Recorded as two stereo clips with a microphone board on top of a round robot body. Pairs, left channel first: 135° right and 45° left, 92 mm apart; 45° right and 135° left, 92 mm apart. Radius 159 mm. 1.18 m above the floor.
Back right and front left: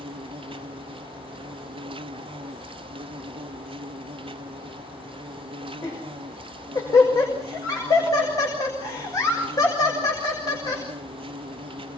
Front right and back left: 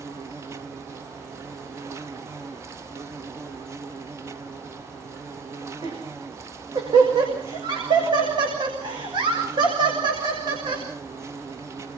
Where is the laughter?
175° left, 6 m.